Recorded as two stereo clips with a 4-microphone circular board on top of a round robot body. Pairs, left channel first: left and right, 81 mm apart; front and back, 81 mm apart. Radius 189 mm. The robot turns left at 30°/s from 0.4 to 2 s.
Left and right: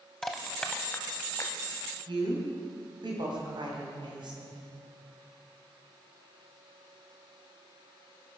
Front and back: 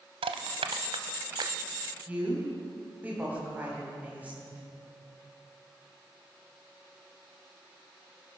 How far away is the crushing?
About 0.7 m.